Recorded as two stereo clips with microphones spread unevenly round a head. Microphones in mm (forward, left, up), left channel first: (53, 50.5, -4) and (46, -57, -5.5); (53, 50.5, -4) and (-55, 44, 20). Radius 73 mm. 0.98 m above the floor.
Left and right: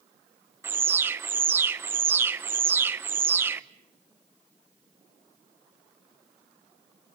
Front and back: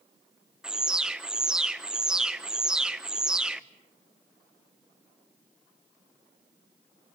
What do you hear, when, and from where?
0.6 s an alarm: 70° right, 0.9 m